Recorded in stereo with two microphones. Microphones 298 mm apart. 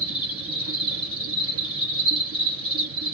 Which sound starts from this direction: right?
An insect, at 0.0 s.